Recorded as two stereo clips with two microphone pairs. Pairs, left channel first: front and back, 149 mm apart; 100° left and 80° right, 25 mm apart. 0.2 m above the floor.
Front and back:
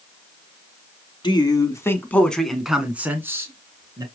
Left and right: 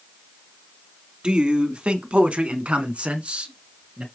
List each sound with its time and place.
1.2 s a man speaking: 45° right, 2.0 m; by 4.0 s 120° right, 3 m